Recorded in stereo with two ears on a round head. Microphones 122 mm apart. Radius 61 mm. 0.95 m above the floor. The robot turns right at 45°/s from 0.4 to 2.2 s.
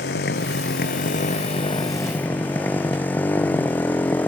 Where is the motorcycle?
85° left; by 4.3 s 165° left.